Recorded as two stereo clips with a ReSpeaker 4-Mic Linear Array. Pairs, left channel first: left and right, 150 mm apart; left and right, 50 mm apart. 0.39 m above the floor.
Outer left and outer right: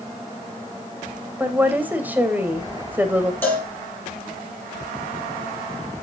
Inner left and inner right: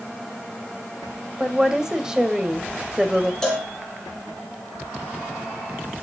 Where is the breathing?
I don't hear breathing.